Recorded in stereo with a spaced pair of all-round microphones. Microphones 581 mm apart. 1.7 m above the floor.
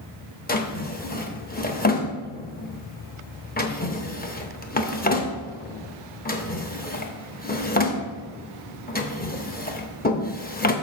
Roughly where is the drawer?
Centre.